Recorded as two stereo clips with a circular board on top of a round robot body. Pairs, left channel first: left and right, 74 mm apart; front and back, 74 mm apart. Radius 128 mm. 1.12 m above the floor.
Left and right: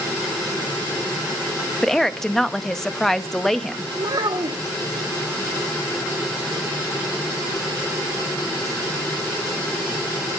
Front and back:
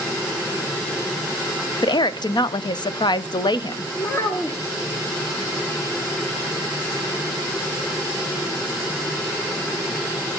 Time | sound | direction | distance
1.8 | a woman speaking | 5° left | 0.7 m
4.0 | a child speaking | 50° right | 1.2 m